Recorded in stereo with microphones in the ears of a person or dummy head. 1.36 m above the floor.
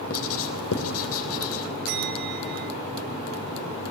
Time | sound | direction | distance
0.1 | writing | 80° left | 3.5 m
1.9 | a bell | 60° right (ahead or behind) | 5.5 m